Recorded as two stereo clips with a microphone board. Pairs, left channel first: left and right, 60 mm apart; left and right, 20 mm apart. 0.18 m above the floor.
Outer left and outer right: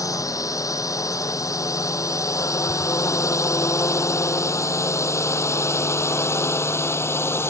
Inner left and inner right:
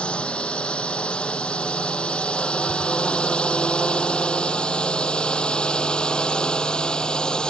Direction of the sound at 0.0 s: 70° left (ahead or behind).